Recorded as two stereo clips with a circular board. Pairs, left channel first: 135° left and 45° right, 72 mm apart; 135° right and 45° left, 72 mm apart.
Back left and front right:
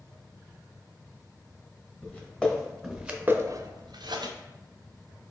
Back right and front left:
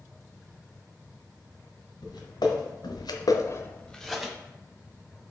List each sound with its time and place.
2.0 s footsteps: 155° right, 1.7 m; by 4.3 s 35° right, 1.0 m